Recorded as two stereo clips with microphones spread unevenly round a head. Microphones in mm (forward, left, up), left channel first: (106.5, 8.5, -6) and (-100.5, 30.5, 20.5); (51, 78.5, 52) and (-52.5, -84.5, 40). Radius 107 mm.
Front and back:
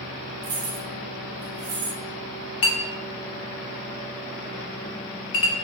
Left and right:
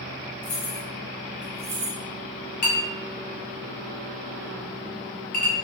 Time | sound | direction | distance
0.4 | keys jangling | 110° left | 0.7 m
2.6 | a clink | 10° left | 0.7 m